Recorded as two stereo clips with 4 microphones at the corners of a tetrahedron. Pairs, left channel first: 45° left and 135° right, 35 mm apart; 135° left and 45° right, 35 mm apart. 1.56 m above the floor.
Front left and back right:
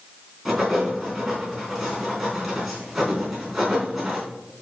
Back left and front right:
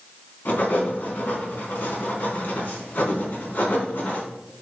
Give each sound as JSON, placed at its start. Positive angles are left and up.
{"t": 0.5, "sound": "writing", "azimuth_deg": 140, "distance_m": 4.0}